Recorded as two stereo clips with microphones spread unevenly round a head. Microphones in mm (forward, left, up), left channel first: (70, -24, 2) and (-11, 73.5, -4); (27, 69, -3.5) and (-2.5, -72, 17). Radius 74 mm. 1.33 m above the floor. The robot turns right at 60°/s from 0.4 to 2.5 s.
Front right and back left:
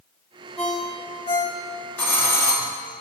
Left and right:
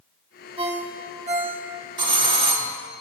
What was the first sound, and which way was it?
A ringtone, 135° right.